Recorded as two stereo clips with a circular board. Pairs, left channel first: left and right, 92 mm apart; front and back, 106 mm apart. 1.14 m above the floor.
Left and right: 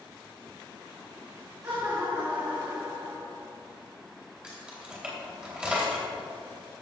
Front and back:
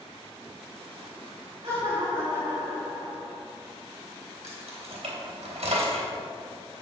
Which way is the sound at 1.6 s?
145° right.